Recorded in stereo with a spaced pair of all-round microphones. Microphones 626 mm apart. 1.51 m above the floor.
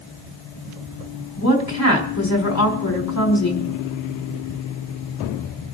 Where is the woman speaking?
25° left (ahead or behind), 4 m.